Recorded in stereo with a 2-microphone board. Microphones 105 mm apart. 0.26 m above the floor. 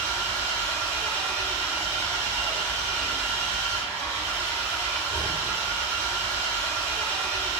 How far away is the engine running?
About 1.7 m.